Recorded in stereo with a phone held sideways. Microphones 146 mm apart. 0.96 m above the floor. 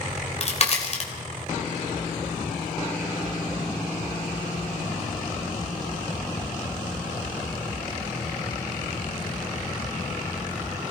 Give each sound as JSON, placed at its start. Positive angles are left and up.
{"t": 0.1, "sound": "a crack", "side_deg": 45, "distance_m": 3.5}